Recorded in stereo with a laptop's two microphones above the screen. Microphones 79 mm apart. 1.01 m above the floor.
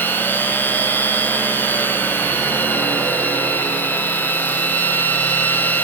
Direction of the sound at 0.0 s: 25° left (ahead or behind).